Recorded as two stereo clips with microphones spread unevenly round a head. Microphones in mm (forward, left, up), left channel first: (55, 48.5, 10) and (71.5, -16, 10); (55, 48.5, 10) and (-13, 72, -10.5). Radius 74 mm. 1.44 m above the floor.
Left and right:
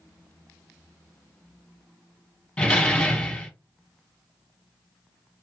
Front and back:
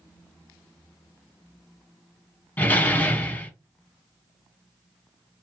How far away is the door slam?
About 1.0 m.